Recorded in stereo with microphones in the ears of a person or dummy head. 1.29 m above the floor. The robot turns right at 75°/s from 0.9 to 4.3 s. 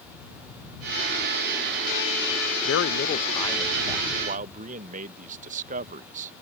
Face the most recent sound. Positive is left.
turn(degrees=-135)